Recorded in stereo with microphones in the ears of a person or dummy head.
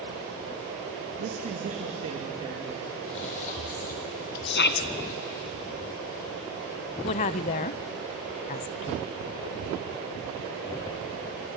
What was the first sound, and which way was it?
A man speaking, 55° right (ahead or behind).